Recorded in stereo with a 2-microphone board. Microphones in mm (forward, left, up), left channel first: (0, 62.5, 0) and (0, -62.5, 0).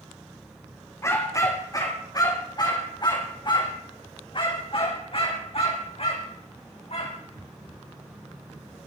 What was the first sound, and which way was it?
A dog barking, 25° left (ahead or behind).